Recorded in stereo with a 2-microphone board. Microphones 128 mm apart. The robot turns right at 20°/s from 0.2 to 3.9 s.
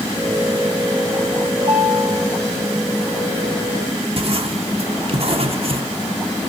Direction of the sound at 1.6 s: 35° right (ahead or behind).